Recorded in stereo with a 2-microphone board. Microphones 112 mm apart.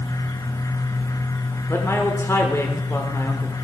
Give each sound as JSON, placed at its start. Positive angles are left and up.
{"t": 1.7, "sound": "a man speaking", "side_deg": 25, "distance_m": 1.2}